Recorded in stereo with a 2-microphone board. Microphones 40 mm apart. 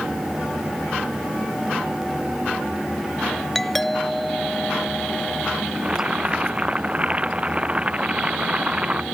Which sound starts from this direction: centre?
A doorbell, at 3.5 s.